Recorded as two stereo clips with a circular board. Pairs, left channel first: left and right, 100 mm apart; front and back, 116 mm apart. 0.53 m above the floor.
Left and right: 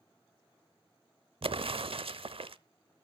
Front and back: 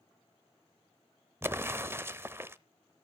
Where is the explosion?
110° right, 0.7 m.